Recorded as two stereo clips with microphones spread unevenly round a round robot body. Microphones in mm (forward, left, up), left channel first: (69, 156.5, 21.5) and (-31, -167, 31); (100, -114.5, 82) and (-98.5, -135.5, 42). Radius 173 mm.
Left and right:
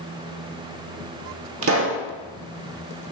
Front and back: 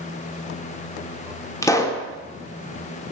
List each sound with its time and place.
1.6 s a pop: 75° right, 1.1 m